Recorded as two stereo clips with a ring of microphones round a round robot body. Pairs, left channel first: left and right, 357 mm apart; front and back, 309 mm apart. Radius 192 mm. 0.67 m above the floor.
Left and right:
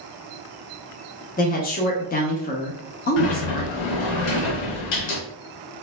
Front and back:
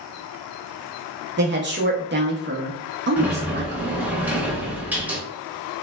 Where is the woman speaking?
145° left, 0.6 m.